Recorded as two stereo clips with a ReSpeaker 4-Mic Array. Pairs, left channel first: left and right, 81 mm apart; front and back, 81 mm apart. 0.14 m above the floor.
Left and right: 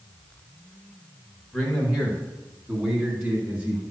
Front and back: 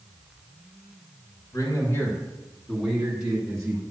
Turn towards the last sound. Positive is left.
turn(degrees=-140)